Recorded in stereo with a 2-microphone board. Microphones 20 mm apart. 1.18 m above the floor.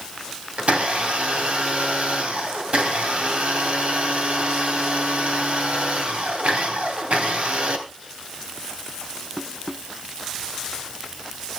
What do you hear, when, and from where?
0.6 s a blender: 80° right, 3 m